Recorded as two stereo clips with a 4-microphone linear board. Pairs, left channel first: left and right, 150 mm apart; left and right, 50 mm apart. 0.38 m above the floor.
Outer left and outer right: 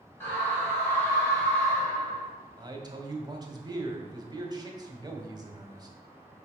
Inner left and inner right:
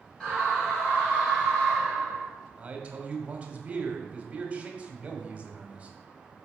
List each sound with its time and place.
0.2 s a scream: 15° left (ahead or behind), 2.5 m
2.6 s a man speaking: 25° right (ahead or behind), 1.6 m